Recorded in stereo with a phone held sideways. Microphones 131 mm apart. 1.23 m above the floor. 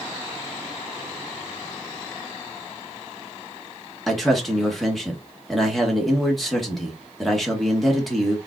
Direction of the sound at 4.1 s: Centre (ahead or behind).